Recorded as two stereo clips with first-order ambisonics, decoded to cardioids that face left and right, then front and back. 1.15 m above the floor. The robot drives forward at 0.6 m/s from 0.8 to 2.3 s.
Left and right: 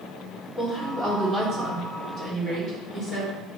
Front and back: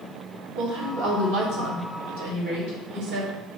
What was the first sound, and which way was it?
A woman speaking, 165° right.